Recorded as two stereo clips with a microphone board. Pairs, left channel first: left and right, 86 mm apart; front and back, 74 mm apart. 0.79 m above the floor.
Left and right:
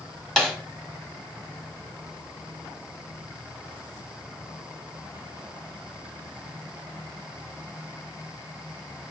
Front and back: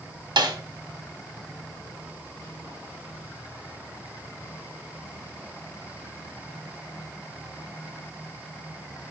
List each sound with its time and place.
0.4 s a snare drum: 175° left, 1.3 m